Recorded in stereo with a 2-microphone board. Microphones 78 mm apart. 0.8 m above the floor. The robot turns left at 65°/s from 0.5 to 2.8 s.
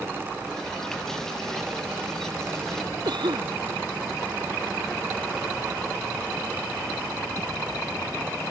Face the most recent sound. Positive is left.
turn(degrees=-80)